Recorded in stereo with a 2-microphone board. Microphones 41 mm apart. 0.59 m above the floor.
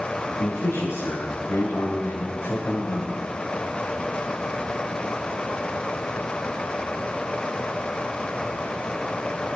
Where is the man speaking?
85° left, 5.5 m; by 3.3 s 60° left (ahead or behind), 3 m.